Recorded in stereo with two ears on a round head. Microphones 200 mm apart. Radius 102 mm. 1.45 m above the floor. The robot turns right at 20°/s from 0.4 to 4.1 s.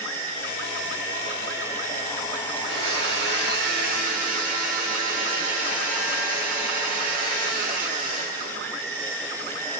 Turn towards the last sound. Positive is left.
turn(degrees=-45)